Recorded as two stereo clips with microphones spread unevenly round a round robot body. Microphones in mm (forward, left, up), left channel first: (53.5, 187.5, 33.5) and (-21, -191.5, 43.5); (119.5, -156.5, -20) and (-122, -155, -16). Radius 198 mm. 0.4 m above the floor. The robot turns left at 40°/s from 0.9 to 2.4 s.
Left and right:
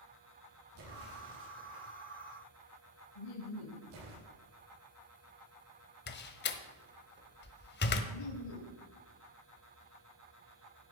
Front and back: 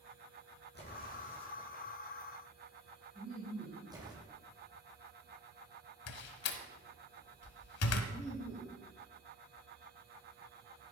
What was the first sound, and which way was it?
An explosion, 45° right.